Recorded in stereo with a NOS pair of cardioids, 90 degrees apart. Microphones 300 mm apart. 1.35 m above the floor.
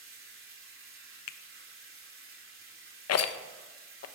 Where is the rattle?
55° left, 1.0 m.